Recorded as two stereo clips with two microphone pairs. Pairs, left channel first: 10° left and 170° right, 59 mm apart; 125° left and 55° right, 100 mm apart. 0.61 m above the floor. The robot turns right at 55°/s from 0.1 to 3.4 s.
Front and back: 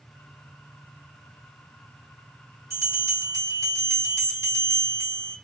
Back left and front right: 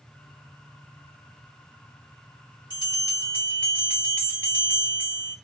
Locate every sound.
2.7 s a bell: 155° left, 1.7 m; by 5.4 s 165° right, 1.7 m